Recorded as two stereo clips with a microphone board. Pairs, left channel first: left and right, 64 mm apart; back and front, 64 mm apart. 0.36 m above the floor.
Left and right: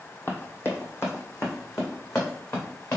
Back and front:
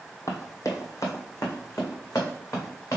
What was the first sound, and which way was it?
Running footsteps, 145° left.